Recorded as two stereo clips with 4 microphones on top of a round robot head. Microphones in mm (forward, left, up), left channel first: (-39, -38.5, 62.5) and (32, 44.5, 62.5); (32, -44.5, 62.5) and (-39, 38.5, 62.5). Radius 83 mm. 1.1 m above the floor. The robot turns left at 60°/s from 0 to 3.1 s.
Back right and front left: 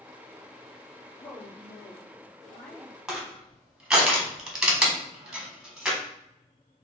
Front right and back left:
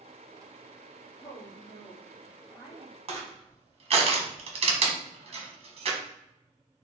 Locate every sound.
1.2 s a woman speaking: 60° right, 1.6 m; by 2.9 s 165° right, 1.6 m
3.1 s crushing: 135° left, 1.2 m